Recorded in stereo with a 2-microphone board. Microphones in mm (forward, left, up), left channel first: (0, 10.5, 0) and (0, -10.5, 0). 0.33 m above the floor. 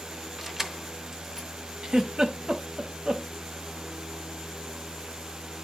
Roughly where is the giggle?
Right.